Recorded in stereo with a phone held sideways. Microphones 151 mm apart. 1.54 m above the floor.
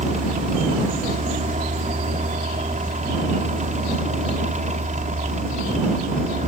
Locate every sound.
0.0 s a fan: 55° right (ahead or behind)